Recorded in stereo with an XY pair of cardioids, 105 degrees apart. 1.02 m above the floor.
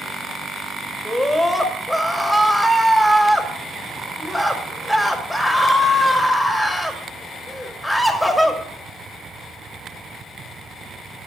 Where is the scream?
Straight ahead, 2 m.